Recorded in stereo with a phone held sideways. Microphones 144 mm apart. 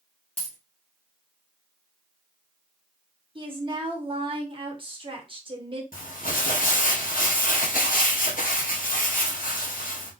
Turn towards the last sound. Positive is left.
turn(degrees=75)  # may be behind; listen again after turning